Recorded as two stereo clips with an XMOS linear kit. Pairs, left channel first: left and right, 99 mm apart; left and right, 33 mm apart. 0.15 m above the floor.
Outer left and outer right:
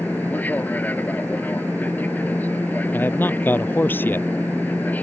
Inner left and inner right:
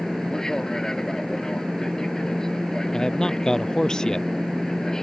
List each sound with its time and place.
0.0 s an aircraft: 15° left (ahead or behind)
2.9 s a man speaking: 20° left (ahead or behind)